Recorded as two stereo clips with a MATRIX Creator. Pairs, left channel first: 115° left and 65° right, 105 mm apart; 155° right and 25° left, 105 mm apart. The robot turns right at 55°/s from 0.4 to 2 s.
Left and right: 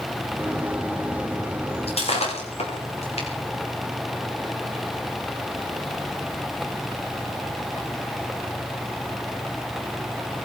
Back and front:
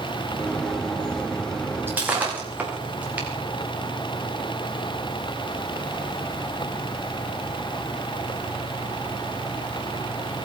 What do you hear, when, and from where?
1.9 s breaking glass: 90° left, 7 m; by 3.3 s 100° left, 7 m